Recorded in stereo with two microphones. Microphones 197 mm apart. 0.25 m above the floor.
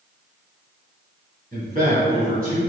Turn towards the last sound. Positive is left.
turn(degrees=-50)  # may be behind; listen again after turning